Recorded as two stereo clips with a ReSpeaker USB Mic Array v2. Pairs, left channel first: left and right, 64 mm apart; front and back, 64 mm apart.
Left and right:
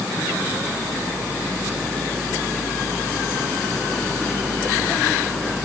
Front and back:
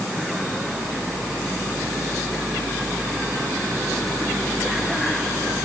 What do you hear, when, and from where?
Only background noise.